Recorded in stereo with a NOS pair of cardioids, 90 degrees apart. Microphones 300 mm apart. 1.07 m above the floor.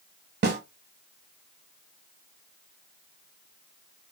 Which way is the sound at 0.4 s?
35° right.